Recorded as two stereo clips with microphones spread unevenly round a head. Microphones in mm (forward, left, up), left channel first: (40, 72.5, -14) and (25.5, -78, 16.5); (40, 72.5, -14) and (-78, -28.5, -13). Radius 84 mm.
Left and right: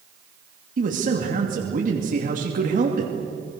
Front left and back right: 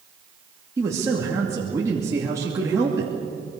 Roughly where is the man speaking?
Ahead right.